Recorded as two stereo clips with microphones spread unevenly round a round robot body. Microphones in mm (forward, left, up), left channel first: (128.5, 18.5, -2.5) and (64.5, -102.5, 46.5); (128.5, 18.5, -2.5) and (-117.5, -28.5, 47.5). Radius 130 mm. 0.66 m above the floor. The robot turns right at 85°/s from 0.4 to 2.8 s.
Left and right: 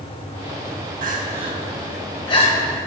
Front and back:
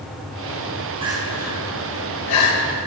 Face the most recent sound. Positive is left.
turn(degrees=55)